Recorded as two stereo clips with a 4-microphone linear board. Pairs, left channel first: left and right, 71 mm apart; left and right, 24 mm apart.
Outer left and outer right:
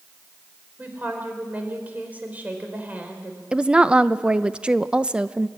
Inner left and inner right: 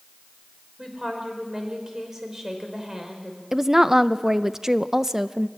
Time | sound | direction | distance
0.8 | a woman speaking | 20° right (ahead or behind) | 4.5 m
3.5 | a woman speaking | 15° right (ahead or behind) | 0.6 m